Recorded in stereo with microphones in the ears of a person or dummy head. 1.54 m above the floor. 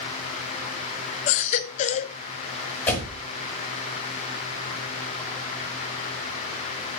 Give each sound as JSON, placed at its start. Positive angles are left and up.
{"t": 1.3, "sound": "a baby crying", "side_deg": 40, "distance_m": 0.6}
{"t": 2.9, "sound": "a door slam", "side_deg": 10, "distance_m": 4.5}